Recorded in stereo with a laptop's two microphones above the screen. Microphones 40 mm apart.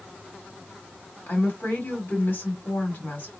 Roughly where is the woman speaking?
Left.